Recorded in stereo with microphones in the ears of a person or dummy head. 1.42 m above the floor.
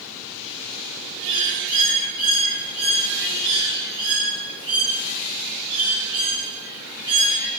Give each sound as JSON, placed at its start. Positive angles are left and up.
{"t": 1.2, "sound": "a bird", "side_deg": -20, "distance_m": 1.8}